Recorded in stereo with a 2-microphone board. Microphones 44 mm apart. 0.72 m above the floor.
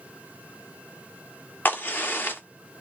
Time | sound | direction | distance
1.6 | a crack | 45° left (ahead or behind) | 1.5 m